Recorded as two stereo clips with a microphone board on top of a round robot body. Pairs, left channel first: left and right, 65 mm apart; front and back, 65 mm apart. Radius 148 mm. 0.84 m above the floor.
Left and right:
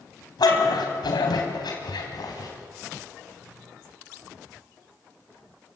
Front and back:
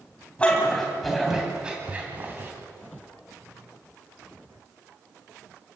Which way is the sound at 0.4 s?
70° left.